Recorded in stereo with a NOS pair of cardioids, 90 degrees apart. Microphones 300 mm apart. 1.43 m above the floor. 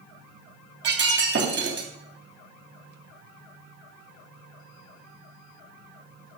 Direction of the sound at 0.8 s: 40° right.